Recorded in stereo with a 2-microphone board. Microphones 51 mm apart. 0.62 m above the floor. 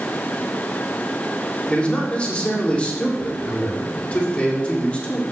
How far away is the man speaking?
About 1.8 m.